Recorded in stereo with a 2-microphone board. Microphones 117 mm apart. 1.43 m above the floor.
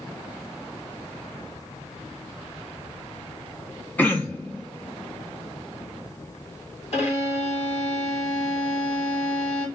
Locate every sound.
4.0 s throat clearing: 15° left (ahead or behind), 0.9 m
6.9 s a violin: 65° left (ahead or behind), 1.6 m